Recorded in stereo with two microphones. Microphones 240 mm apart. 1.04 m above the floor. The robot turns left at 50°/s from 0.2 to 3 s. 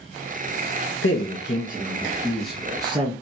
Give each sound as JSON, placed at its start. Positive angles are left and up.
{"t": 1.0, "sound": "a man speaking", "azimuth_deg": 75, "distance_m": 1.2}